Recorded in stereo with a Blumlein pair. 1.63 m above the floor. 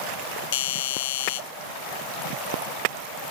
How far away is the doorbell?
About 0.5 m.